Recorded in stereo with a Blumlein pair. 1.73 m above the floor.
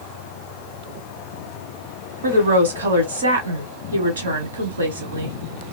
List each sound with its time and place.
2.2 s a woman speaking: 70° right, 1.3 m